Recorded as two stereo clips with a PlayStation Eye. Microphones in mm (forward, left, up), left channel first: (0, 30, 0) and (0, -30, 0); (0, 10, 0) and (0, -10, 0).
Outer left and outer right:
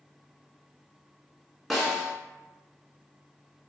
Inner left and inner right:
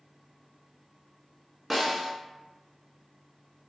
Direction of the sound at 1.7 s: Centre (ahead or behind).